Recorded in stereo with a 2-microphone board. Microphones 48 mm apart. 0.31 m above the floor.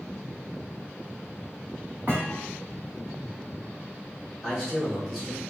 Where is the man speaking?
5° right (ahead or behind), 1.9 m.